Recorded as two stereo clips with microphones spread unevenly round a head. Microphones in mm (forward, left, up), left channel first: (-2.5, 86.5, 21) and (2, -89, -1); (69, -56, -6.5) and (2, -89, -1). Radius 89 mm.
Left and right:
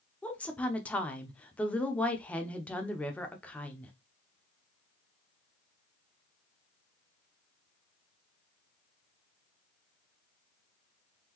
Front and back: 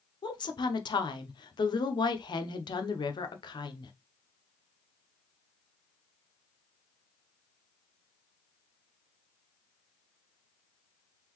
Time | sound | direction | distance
0.2 | a woman speaking | 10° left | 0.7 m